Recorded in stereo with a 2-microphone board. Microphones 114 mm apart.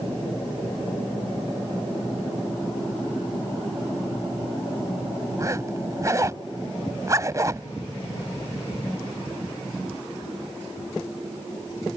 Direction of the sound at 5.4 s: 30° right (ahead or behind).